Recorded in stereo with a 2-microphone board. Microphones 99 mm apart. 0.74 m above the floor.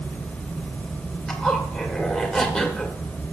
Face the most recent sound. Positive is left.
turn(degrees=10)  # may be behind; listen again after turning